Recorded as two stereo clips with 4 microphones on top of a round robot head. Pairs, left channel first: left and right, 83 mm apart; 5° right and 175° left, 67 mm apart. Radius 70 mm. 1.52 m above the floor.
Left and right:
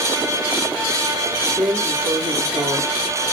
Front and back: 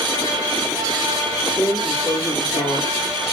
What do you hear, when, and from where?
1.6 s a drawer: 35° right, 1.6 m